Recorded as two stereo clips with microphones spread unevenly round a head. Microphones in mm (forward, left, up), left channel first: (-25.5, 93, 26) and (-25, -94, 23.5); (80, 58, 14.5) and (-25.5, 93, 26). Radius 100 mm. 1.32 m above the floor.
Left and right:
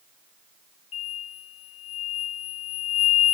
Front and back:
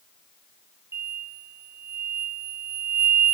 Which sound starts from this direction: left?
An explosion, at 0.9 s.